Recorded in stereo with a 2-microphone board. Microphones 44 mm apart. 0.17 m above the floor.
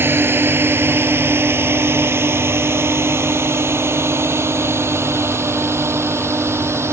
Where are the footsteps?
I don't hear footsteps.